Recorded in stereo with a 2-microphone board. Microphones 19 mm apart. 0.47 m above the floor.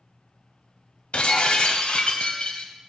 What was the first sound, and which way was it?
Breaking glass, 65° left (ahead or behind).